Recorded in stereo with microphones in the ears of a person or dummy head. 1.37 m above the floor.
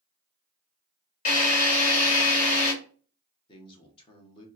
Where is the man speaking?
25° left (ahead or behind), 0.9 m.